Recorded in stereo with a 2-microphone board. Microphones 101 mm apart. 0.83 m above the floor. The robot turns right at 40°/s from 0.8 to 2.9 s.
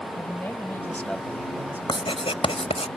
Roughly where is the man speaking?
Behind.